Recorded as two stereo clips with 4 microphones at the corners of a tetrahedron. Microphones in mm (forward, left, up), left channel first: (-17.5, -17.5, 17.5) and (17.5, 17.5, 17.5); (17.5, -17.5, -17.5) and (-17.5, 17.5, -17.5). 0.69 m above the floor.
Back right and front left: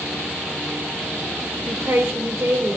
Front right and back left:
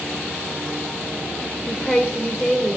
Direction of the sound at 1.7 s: 40° left.